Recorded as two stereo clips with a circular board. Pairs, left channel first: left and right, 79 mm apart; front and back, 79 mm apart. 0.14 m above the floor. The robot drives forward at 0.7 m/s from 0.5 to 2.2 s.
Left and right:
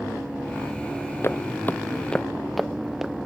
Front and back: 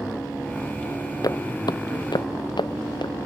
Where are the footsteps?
35° left; by 3.1 s 5° right.